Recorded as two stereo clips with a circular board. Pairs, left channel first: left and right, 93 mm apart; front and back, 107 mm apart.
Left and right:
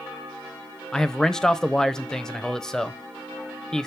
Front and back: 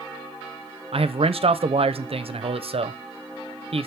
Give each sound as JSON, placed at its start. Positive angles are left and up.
{"t": 0.9, "sound": "a man speaking", "azimuth_deg": 175, "distance_m": 0.5}